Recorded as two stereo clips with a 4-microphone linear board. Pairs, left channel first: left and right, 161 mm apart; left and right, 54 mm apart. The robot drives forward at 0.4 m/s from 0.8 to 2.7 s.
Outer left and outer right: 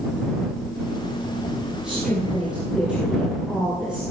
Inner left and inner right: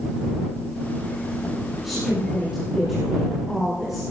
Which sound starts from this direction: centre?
A woman speaking, at 1.8 s.